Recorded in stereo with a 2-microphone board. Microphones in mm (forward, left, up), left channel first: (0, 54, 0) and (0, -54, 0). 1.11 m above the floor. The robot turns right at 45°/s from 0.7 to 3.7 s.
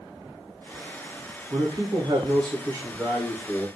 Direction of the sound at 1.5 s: 105° right.